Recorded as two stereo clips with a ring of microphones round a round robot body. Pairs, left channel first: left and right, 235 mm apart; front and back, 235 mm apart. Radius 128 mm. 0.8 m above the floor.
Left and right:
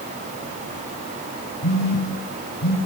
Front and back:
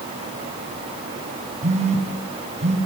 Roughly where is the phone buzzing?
Behind left.